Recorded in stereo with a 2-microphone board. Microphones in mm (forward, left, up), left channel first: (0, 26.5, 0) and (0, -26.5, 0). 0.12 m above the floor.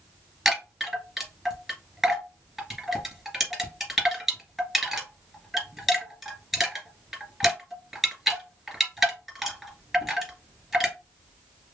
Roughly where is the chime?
Centre.